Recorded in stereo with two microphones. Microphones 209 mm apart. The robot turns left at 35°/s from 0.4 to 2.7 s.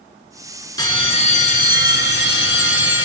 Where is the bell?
160° left, 1.6 m; by 3.0 s 95° left, 1.6 m.